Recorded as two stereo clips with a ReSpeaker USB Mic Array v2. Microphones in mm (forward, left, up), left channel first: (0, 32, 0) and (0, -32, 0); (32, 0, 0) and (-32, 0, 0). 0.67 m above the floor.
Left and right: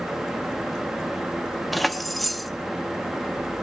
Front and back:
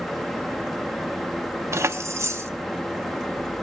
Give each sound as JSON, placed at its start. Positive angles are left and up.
{"t": 1.7, "sound": "keys jangling", "azimuth_deg": 180, "distance_m": 0.7}